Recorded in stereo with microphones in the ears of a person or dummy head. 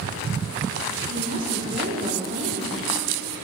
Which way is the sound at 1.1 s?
50° right (ahead or behind).